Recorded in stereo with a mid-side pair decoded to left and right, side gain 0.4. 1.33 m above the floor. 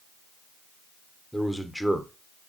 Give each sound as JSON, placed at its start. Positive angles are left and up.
{"t": 1.3, "sound": "a man speaking", "azimuth_deg": 5, "distance_m": 0.8}